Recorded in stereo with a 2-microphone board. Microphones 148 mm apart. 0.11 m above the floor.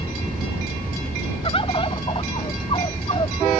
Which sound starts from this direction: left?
A bird, at 1.4 s.